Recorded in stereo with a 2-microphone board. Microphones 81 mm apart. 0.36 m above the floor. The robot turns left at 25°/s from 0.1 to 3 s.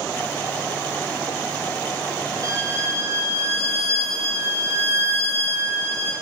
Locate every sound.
2.4 s a violin: 45° right (ahead or behind), 1.0 m; by 6.1 s 35° right (ahead or behind), 1.0 m